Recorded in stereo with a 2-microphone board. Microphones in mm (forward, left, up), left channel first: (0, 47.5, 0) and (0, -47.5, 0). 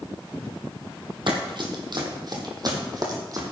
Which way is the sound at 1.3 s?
55° right (ahead or behind).